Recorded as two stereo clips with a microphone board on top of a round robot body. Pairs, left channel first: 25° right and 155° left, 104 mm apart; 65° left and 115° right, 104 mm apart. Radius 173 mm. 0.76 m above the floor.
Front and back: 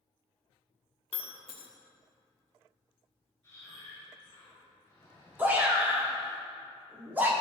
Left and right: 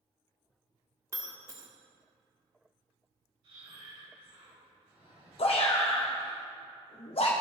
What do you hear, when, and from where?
1.1 s breaking glass: 55° right, 1.5 m
3.4 s breathing: 85° right, 4 m
5.4 s a shout: 85° left, 1.7 m